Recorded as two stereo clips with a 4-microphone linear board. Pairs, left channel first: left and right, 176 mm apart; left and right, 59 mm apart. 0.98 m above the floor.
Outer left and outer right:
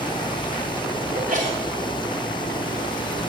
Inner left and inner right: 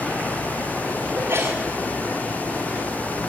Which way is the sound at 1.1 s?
50° right (ahead or behind).